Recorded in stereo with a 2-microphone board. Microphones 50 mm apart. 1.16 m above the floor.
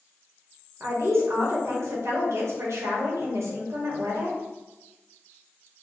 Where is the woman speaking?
70° right (ahead or behind), 1.1 m.